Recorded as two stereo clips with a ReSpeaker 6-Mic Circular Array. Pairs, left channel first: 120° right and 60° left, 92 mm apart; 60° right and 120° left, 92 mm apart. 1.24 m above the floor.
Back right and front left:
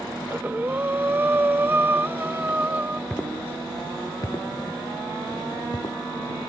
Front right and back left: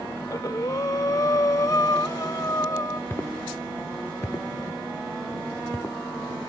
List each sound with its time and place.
0.2 s breathing: 10° right
3.1 s footsteps: 65° right; by 6.0 s 115° right